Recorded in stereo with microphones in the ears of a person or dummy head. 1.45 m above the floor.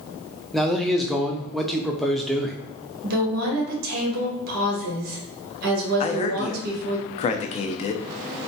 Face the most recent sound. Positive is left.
turn(degrees=35)  # may be behind; listen again after turning